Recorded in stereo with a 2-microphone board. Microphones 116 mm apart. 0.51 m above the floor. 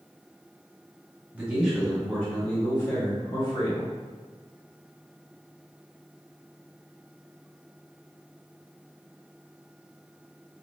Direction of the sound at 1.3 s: 15° right (ahead or behind).